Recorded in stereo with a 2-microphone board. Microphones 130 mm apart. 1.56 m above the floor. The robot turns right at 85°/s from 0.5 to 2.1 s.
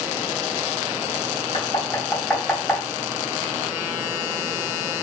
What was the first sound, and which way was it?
Knocking, 45° left (ahead or behind).